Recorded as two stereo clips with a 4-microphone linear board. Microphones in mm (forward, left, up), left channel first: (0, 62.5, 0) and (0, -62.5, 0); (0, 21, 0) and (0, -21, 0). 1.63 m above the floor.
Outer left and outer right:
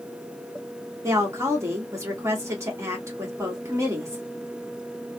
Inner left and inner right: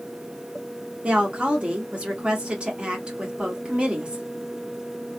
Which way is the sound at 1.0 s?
25° right (ahead or behind).